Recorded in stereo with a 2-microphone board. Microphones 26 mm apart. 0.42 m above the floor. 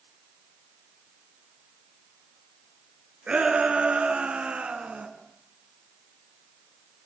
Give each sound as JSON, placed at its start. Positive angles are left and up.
{"t": 3.3, "sound": "a shout", "side_deg": -60, "distance_m": 6.5}